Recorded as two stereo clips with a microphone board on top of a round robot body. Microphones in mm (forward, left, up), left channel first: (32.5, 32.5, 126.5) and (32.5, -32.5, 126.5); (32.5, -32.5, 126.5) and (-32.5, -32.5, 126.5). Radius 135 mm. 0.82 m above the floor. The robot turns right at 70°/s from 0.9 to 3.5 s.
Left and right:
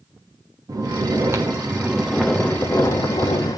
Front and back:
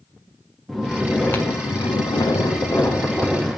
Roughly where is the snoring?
Right.